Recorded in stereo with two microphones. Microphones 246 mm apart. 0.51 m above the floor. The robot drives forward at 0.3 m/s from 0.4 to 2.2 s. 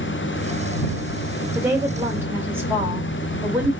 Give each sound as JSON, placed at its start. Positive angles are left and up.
{"t": 1.6, "sound": "a woman speaking", "side_deg": -10, "distance_m": 1.8}